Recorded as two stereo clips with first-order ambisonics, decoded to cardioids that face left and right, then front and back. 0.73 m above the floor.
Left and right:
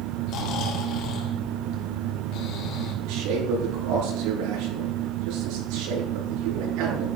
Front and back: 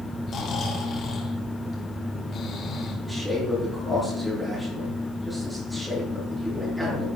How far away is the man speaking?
About 9 m.